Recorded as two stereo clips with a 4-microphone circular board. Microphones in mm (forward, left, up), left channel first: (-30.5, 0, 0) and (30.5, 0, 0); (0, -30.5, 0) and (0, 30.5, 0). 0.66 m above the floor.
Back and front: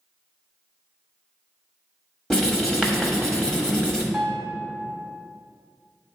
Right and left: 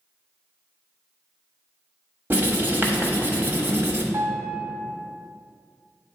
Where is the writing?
110° left, 1.1 m.